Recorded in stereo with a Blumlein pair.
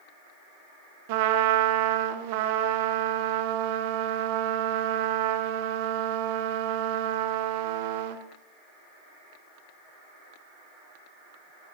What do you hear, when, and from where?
1.1 s a trumpet: 45° right, 1.5 m